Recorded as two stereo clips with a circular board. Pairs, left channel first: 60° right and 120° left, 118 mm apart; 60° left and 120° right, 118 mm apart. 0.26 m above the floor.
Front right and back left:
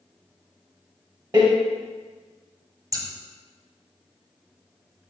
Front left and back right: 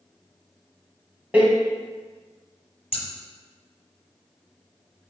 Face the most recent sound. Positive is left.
turn(degrees=70)